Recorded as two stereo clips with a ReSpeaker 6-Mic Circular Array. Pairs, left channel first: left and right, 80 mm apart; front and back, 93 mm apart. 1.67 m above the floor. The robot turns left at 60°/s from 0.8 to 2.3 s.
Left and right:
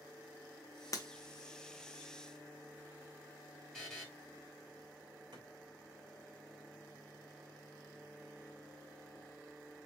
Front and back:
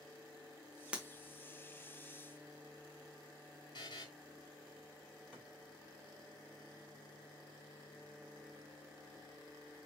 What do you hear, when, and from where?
0.9 s breaking glass: 105° left, 1.1 m; by 1.1 s 100° left, 1.1 m
3.7 s a buzzer: 10° left, 2.0 m
5.3 s a thud: 105° right, 3 m